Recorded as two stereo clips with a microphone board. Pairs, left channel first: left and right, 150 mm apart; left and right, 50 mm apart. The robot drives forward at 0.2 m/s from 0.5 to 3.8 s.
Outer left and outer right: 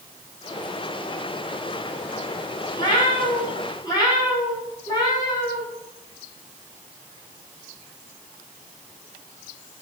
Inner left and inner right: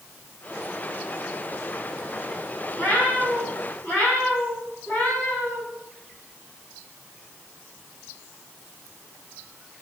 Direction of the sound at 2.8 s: 30° left (ahead or behind).